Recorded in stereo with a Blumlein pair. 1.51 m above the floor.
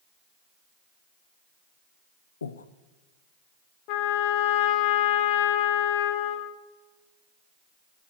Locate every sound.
2.4 s breathing: 70° left, 0.6 m
3.9 s a trumpet: 40° left, 0.9 m